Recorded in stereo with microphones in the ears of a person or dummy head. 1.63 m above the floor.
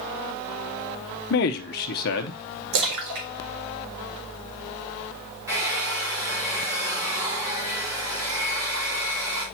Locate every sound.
1.3 s a man speaking: 50° left (ahead or behind), 0.8 m
2.7 s a splash: 65° right (ahead or behind), 1.7 m
5.5 s a hair dryer: 15° right (ahead or behind), 4 m